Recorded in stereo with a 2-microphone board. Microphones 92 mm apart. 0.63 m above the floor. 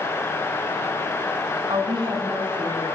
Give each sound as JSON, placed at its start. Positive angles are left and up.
{"t": 1.7, "sound": "a woman speaking", "side_deg": -70, "distance_m": 6.5}